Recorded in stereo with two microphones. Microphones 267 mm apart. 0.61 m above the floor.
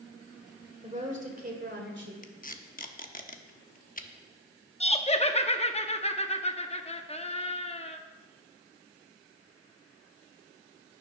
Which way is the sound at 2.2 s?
30° left (ahead or behind).